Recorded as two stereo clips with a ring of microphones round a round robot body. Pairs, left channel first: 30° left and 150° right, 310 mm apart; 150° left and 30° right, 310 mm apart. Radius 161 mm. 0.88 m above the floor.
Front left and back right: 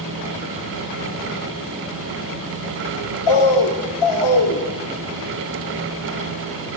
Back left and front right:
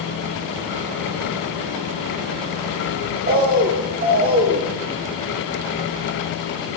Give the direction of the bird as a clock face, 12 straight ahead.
11 o'clock.